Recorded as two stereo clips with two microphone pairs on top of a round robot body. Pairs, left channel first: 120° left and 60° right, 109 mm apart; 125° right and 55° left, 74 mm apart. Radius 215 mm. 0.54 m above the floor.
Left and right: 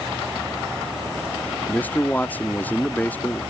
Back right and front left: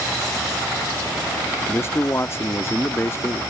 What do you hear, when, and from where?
1.7 s a man speaking: 165° right